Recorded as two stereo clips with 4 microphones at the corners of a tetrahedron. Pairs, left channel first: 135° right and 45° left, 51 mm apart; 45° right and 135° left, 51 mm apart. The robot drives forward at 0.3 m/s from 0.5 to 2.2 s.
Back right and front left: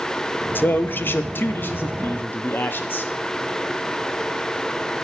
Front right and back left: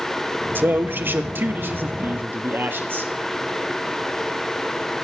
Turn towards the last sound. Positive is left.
turn(degrees=180)